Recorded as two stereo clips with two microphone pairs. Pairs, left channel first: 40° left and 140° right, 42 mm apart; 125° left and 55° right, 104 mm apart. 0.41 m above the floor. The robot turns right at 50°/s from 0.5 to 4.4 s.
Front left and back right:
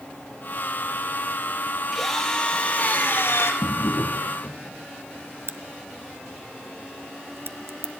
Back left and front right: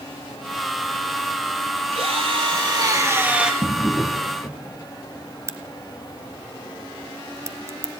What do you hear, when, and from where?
1.9 s a drill: 50° right, 5.5 m; by 3.5 s 30° left, 5.5 m
3.6 s a drawer: 15° left, 2.5 m; by 4.6 s 55° left, 2.5 m
5.5 s a crack: 120° right, 1.0 m